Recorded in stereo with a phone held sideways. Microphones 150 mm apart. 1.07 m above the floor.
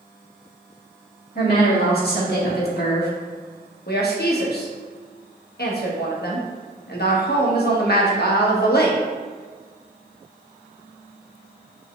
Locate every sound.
1.4 s a woman speaking: 75° left (ahead or behind), 1.9 m
3.9 s a woman speaking: 80° left, 0.9 m